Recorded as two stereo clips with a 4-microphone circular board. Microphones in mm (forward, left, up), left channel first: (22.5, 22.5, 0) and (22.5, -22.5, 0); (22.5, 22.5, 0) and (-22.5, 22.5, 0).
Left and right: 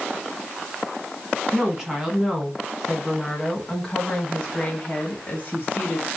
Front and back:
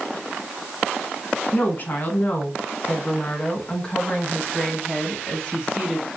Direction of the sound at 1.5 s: 20° right.